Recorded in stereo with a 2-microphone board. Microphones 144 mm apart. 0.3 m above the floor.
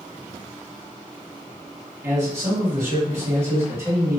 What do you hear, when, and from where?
2.0 s a man speaking: 20° right (ahead or behind), 2.0 m